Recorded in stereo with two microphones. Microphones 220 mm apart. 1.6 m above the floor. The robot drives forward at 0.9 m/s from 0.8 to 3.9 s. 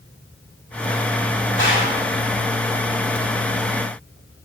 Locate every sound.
1.6 s a gunshot: 55° left (ahead or behind), 2 m; by 2.0 s 60° left (ahead or behind), 1.9 m